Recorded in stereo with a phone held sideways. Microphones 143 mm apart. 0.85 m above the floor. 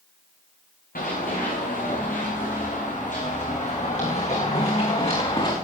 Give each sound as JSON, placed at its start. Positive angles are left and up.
{"t": 0.9, "sound": "running footsteps", "side_deg": 80, "distance_m": 5.0}